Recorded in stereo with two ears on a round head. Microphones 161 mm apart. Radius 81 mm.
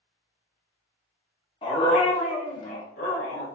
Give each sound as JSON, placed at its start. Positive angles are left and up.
{"t": 1.6, "sound": "a dog barking", "side_deg": 30, "distance_m": 1.1}